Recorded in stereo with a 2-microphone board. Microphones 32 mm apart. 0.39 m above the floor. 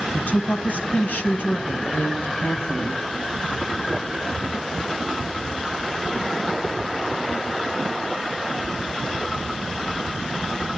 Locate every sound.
0.1 s a woman speaking: 50° left (ahead or behind), 3 m; by 3.0 s 65° left (ahead or behind), 3.5 m